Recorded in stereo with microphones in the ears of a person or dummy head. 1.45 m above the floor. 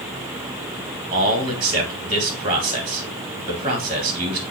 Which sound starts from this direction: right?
A man speaking, at 1.1 s.